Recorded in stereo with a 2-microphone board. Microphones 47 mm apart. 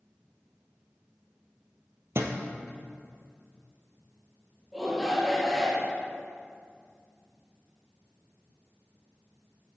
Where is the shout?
Centre (ahead or behind), 2.5 m.